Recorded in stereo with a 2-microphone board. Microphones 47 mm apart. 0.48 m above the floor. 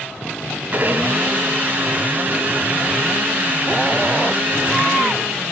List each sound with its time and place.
0.7 s a blender: 40° right (ahead or behind), 2.5 m